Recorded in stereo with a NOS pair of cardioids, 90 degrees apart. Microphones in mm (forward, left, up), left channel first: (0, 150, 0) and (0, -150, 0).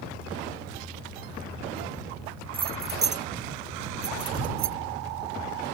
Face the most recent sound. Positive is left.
turn(degrees=-65)